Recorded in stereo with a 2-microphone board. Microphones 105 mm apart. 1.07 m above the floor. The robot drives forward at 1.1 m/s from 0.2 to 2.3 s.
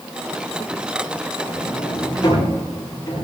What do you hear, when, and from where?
1.4 s a sliding door: 40° left (ahead or behind), 8 m; by 3.2 s 35° left (ahead or behind), 9 m